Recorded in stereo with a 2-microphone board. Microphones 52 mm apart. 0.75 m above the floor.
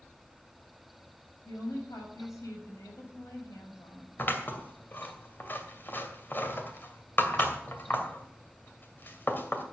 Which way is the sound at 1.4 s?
80° left.